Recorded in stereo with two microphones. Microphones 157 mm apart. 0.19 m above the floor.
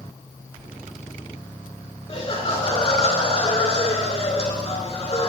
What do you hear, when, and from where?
2.1 s laughter: 35° left (ahead or behind), 2.5 m